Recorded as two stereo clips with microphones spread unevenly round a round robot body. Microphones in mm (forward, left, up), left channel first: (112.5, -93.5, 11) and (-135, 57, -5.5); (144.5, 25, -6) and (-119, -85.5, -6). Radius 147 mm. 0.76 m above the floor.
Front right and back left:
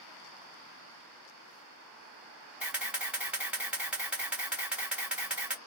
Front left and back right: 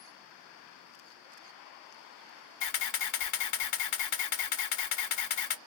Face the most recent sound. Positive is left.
turn(degrees=65)